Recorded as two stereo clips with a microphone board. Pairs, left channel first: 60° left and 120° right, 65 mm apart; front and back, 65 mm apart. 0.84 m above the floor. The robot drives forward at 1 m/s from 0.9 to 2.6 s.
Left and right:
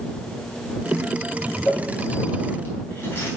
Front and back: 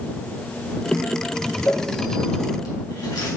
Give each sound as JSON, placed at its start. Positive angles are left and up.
{"t": 1.6, "sound": "crumpling", "azimuth_deg": 5, "distance_m": 4.5}